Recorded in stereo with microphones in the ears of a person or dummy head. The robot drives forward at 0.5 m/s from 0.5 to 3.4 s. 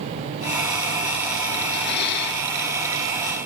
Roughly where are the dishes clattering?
Left.